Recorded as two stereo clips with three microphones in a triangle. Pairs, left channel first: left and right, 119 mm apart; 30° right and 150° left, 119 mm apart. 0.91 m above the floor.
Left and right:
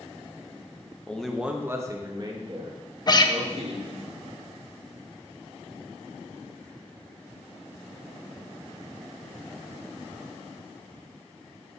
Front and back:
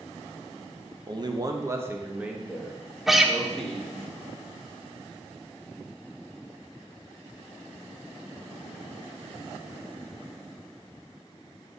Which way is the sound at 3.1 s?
65° left.